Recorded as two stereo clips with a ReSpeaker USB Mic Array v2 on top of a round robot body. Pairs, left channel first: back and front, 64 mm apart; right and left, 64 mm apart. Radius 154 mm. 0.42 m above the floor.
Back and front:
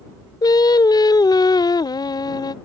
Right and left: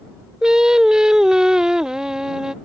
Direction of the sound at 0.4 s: 170° left.